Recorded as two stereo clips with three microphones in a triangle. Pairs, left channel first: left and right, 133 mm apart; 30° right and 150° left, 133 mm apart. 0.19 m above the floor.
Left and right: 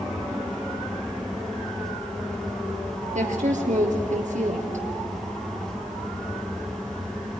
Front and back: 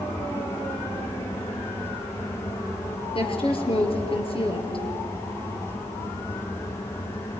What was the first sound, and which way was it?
A woman speaking, 75° right.